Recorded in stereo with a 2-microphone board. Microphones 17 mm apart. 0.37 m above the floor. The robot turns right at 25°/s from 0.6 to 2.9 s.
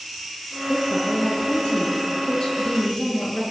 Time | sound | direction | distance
0.7 | a woman speaking | 85° left | 6.5 m